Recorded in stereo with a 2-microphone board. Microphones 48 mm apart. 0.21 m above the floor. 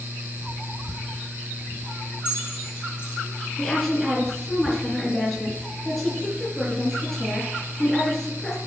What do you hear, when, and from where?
2.2 s keys jangling: 45° left (ahead or behind), 4.5 m
3.6 s a woman speaking: 5° left (ahead or behind), 3 m